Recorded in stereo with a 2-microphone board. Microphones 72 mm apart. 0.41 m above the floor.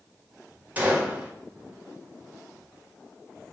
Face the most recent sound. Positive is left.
turn(degrees=-25)  # may be behind; listen again after turning